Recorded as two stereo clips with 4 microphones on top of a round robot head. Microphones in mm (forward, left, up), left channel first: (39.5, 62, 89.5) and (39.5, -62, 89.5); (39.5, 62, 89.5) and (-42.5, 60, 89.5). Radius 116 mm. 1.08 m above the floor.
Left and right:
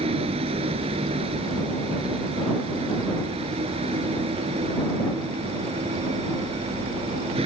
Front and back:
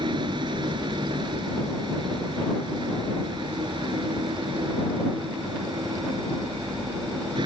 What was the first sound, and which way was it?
A vehicle, 140° right.